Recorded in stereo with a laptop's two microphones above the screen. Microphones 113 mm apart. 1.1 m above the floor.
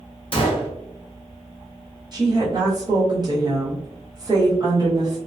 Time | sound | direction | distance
0.3 | a gunshot | 50° left (ahead or behind) | 0.5 m
2.1 | a woman speaking | 35° right (ahead or behind) | 0.9 m